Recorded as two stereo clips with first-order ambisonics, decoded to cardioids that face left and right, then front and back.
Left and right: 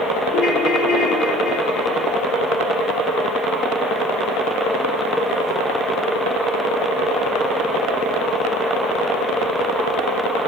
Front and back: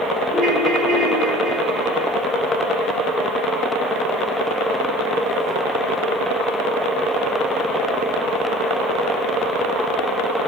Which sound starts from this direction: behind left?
A ringtone, at 0.3 s.